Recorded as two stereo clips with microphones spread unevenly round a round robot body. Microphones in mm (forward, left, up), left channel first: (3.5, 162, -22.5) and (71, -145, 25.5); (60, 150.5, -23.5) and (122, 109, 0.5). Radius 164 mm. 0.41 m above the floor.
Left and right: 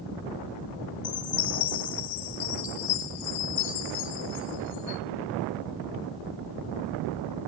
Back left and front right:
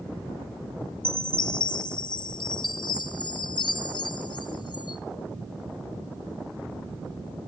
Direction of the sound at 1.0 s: 130° left.